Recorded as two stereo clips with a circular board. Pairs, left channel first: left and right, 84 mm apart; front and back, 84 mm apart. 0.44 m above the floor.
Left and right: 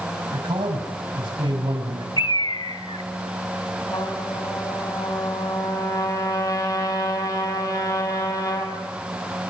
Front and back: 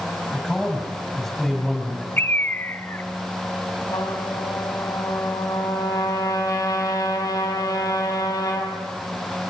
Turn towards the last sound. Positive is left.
turn(degrees=50)